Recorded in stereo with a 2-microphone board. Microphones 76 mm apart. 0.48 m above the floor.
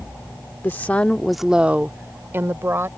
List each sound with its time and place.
0.6 s a woman speaking: 30° left (ahead or behind); by 2.9 s 35° right (ahead or behind)